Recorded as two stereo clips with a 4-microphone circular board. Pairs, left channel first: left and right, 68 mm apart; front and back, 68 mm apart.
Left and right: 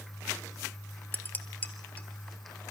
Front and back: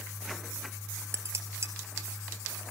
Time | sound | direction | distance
1.1 | dishes clattering | 145° left | 1.3 m